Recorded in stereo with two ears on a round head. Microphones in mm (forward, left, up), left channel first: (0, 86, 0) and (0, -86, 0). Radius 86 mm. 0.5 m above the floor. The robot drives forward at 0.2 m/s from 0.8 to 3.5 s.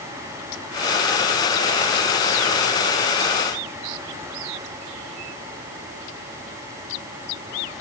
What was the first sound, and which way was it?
Only background noise.